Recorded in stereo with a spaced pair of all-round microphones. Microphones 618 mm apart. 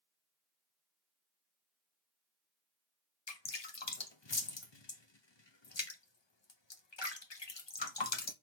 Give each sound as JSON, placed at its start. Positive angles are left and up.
{"t": 3.3, "sound": "dripping", "side_deg": 45, "distance_m": 0.9}